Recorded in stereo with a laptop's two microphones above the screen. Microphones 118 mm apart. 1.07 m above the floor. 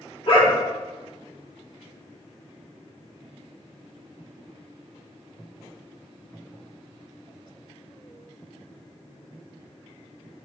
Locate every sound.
0.3 s a dog barking: 50° left (ahead or behind), 1.0 m